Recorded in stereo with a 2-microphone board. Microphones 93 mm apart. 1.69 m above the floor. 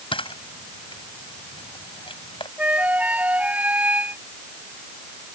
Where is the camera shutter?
65° left (ahead or behind).